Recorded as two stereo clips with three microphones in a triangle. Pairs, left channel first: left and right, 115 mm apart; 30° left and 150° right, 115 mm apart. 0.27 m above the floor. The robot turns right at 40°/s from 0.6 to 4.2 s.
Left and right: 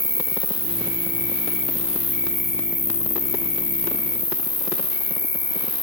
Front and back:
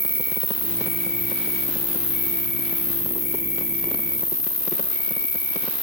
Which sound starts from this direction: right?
An insect, at 0.0 s.